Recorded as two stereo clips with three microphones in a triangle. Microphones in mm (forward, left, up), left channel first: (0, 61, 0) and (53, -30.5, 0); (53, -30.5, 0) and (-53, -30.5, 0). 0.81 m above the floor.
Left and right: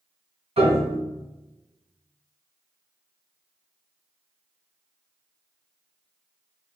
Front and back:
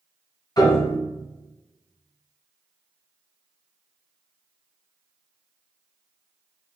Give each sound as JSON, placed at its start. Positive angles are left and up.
{"t": 0.6, "sound": "a piano", "azimuth_deg": -50, "distance_m": 1.7}